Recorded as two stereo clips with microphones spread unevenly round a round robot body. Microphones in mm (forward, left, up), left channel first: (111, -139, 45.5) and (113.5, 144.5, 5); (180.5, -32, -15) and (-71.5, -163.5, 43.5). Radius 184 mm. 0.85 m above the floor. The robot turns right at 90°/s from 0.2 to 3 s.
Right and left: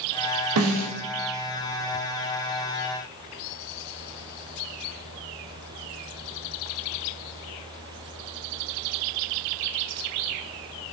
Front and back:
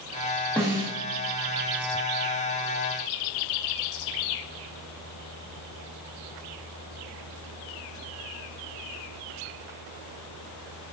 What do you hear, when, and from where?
0.6 s a snare drum: 105° left, 0.5 m; by 0.9 s 140° left, 0.5 m